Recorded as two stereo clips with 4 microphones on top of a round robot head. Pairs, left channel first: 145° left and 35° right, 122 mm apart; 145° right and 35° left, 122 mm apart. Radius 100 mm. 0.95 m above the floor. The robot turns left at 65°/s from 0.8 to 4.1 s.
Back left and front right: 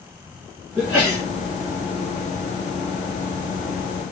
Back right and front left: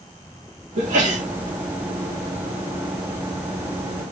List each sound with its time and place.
0.8 s a sneeze: 50° left, 2 m; by 1.2 s 20° left, 2 m